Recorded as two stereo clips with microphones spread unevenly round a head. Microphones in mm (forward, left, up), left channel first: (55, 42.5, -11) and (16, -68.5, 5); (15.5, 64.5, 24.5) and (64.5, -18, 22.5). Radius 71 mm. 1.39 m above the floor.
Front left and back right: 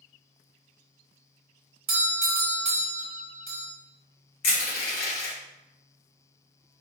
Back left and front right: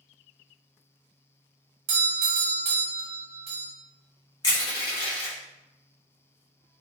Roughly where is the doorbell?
Right.